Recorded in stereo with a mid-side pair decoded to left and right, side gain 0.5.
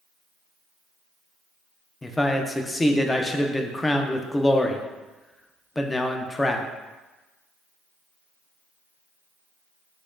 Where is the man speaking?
15° left, 0.5 m.